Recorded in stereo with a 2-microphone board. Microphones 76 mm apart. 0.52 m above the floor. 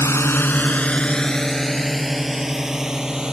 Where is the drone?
40° left (ahead or behind); by 3.3 s 10° right (ahead or behind).